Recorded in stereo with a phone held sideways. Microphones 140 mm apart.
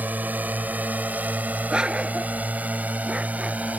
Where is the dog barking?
5° right (ahead or behind).